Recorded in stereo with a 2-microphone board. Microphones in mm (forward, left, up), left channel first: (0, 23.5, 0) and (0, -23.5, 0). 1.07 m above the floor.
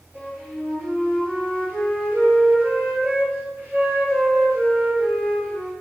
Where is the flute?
60° right (ahead or behind), 1.4 m.